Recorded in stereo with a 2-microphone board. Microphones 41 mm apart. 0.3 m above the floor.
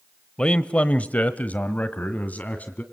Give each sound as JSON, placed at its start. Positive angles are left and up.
{"t": 0.4, "sound": "a man speaking", "side_deg": 25, "distance_m": 1.0}